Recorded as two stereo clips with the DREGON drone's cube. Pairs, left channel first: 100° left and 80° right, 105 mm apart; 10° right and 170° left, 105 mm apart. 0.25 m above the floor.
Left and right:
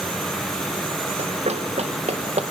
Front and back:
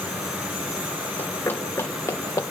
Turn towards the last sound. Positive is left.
turn(degrees=-75)